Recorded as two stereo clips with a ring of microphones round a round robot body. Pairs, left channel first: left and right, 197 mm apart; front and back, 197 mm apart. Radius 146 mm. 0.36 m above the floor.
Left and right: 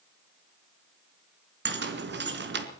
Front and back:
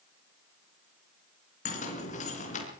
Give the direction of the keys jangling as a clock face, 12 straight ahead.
2 o'clock.